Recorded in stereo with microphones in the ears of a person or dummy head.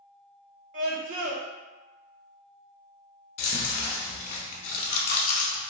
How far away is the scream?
About 0.8 m.